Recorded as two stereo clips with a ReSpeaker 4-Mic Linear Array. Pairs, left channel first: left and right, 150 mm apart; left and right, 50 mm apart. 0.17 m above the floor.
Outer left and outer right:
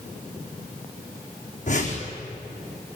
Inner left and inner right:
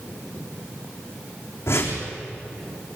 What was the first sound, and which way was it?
A whoosh, 55° left (ahead or behind).